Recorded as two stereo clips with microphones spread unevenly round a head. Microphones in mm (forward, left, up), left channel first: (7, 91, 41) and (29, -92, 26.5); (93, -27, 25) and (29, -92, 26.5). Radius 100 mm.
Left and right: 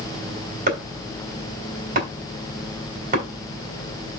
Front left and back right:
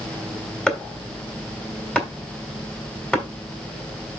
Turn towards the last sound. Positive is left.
turn(degrees=-35)